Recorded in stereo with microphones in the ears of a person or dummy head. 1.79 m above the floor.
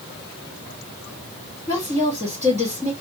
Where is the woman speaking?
15° left (ahead or behind), 1.5 m.